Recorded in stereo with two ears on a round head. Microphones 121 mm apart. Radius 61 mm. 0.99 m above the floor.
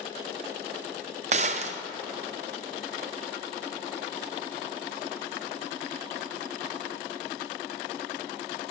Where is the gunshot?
50° right (ahead or behind), 0.5 m.